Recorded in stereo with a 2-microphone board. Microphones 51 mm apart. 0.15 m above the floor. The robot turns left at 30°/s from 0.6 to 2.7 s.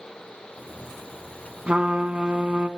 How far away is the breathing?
I don't hear breathing.